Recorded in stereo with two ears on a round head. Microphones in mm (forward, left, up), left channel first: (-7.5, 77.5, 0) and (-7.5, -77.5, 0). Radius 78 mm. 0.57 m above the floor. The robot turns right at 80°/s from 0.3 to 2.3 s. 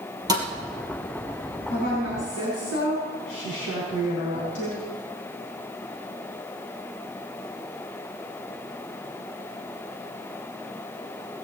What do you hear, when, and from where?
0.3 s a thud: 20° right (ahead or behind), 2.5 m; by 0.5 s 10° right (ahead or behind), 2.5 m
1.7 s a woman speaking: 45° left, 4.5 m; by 4.8 s 95° left, 4.5 m